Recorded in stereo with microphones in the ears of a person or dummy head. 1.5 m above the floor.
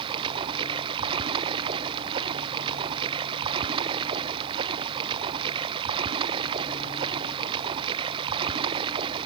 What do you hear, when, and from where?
0.0 s running water: 25° right (ahead or behind)